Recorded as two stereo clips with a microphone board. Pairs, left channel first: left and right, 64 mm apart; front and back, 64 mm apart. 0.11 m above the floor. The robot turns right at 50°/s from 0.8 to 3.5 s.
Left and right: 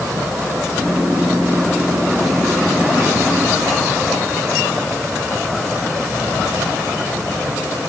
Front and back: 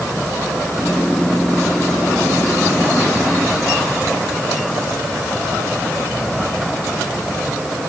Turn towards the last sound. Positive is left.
No sound to turn to.